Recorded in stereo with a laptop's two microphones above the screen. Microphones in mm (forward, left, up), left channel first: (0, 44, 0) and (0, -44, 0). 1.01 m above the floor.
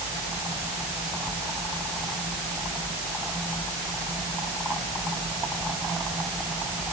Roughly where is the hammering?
I don't hear hammering.